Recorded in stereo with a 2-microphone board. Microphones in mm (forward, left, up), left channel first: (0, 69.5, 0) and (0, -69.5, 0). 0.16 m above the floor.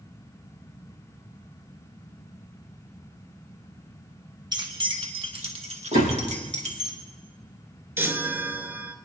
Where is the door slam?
65° right (ahead or behind), 4 m.